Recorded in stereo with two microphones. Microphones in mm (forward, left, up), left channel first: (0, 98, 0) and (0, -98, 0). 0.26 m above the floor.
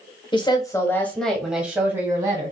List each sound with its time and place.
0.3 s a woman speaking: 25° left (ahead or behind), 1.0 m; by 2.5 s 20° right (ahead or behind), 1.4 m